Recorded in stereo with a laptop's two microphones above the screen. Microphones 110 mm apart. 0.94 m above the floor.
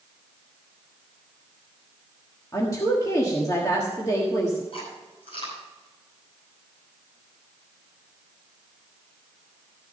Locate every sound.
2.5 s a woman speaking: 30° left (ahead or behind), 1.4 m
4.7 s chewing: 55° left (ahead or behind), 5 m